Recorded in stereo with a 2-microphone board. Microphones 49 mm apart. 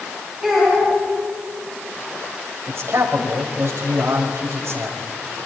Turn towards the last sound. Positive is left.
turn(degrees=-60)  # may be behind; listen again after turning